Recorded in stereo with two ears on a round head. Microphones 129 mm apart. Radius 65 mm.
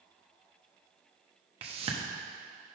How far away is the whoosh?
About 1.0 m.